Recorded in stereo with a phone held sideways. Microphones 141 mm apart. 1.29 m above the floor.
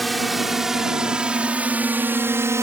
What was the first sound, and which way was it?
A drone, centre (ahead or behind).